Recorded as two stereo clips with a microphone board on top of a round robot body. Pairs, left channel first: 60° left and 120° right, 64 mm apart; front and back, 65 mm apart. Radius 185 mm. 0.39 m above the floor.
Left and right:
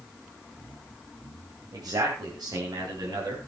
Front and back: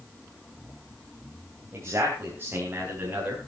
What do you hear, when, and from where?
1.7 s a man speaking: 135° right, 3 m; by 3.4 s 110° right, 5 m